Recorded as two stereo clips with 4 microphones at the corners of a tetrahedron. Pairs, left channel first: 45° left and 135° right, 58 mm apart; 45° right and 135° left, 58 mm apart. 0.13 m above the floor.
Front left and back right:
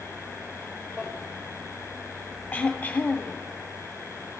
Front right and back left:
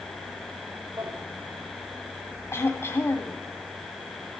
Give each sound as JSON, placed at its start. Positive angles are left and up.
{"t": 1.0, "sound": "a drawer", "azimuth_deg": 150, "distance_m": 4.5}
{"t": 2.5, "sound": "throat clearing", "azimuth_deg": -15, "distance_m": 1.8}